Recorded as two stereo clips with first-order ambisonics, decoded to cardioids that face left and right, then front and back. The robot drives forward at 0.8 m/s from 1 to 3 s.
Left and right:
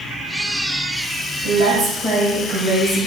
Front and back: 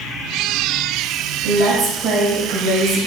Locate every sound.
1.4 s a woman speaking: 140° right, 5 m; by 3.0 s 145° right, 5.5 m